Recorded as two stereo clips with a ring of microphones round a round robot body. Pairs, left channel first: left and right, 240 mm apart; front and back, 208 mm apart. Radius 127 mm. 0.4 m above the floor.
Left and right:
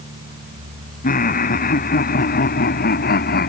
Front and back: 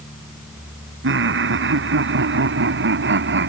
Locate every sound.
1.0 s laughter: 150° left; by 3.5 s 145° left